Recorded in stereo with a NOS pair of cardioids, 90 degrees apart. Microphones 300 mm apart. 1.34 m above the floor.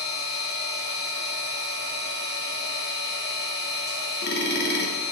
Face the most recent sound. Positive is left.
turn(degrees=35)